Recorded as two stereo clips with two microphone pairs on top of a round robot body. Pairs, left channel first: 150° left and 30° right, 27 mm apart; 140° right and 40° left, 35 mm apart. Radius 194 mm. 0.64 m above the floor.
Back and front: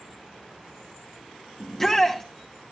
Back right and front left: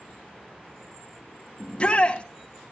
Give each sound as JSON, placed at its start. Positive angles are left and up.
{"t": 1.6, "sound": "a shout", "azimuth_deg": -140, "distance_m": 1.4}